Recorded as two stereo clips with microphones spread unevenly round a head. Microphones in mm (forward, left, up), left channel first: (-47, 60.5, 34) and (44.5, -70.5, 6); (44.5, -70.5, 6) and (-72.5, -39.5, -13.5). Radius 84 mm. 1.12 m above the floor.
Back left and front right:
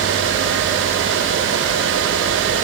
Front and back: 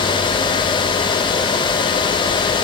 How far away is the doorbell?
No doorbell in this recording.